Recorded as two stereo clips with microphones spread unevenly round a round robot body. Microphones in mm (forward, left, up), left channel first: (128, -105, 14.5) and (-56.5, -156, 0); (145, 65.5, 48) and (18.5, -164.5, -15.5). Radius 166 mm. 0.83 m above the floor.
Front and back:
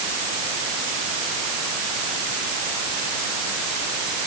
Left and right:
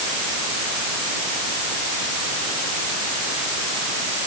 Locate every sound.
Only background noise.